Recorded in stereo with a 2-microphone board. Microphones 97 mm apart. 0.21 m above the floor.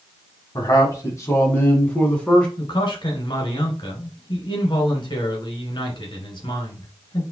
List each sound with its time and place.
0.6 s a man speaking: 40° left (ahead or behind), 1.6 m; by 2.5 s 10° left (ahead or behind), 2 m
2.6 s a man speaking: 55° left (ahead or behind), 2 m